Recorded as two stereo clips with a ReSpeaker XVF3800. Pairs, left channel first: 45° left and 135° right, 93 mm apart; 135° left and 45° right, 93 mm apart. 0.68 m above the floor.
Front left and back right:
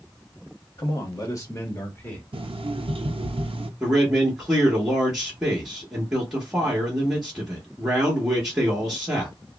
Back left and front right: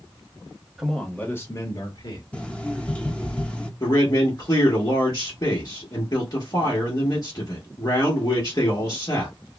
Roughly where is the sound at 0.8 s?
Ahead left.